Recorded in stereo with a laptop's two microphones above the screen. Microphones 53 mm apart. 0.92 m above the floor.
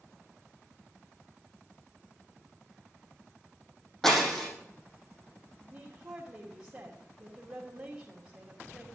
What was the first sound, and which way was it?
Breaking glass, 5° left (ahead or behind).